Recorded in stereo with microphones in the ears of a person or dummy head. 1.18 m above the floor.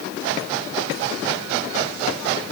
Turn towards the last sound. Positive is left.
No sound to turn to.